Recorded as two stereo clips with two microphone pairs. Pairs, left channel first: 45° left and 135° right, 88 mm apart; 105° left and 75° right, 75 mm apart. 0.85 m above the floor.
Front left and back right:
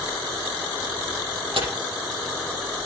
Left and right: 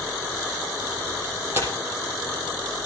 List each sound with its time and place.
1.5 s tearing paper: 135° right, 6 m